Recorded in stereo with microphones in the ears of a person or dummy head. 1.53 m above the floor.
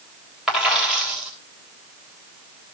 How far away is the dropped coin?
About 3.5 m.